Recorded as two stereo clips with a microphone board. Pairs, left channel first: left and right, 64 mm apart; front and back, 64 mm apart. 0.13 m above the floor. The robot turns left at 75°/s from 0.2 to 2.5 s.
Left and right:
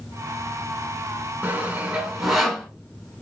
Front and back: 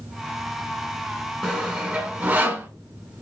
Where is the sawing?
105° right, 1.4 m; by 2.7 s 175° left, 1.4 m.